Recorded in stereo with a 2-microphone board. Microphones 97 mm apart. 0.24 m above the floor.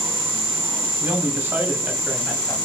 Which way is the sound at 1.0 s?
30° right (ahead or behind).